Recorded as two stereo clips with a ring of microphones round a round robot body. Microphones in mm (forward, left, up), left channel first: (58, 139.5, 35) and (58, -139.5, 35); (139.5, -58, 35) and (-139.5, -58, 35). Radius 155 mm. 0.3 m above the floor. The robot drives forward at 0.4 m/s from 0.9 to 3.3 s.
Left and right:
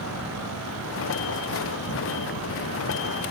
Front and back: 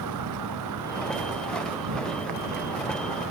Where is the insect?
140° left; by 3.3 s 145° left.